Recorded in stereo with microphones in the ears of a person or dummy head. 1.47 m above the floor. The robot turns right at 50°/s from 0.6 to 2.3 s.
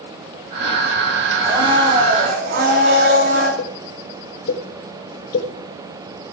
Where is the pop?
70° left (ahead or behind), 4.5 m.